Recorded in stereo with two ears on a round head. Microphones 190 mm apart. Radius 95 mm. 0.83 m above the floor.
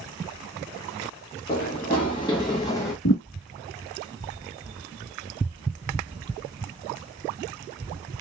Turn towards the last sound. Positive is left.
turn(degrees=60)  # may be behind; listen again after turning